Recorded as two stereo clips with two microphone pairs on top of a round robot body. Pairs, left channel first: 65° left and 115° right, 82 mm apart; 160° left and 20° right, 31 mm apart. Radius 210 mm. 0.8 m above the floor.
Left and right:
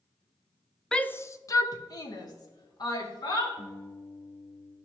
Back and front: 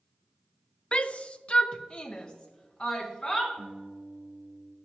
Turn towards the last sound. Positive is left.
turn(degrees=10)